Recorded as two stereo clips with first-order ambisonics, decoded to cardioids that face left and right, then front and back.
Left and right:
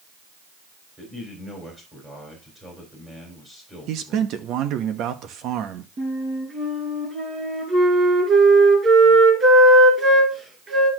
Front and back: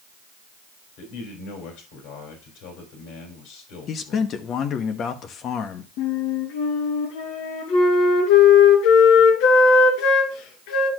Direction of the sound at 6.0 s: 20° right.